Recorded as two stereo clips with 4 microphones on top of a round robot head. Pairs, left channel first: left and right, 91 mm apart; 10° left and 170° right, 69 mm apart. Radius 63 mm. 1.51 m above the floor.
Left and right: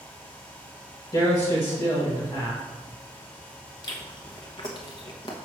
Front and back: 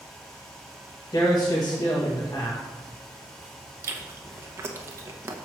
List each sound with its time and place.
1.1 s a man speaking: 45° left, 1.8 m
3.8 s chewing: 145° left, 0.9 m